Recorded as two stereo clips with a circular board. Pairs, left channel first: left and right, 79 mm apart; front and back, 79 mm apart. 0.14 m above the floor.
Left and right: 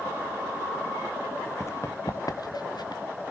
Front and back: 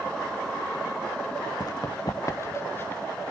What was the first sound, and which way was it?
Running footsteps, 35° left.